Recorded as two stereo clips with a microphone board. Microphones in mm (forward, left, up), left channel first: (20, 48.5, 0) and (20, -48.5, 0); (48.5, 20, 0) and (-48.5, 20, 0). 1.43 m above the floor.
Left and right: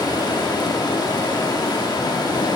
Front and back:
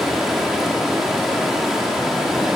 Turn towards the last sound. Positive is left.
turn(degrees=95)